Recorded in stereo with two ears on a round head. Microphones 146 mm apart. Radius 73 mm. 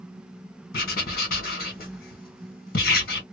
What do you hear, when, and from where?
0.7 s writing: 60° left (ahead or behind), 2 m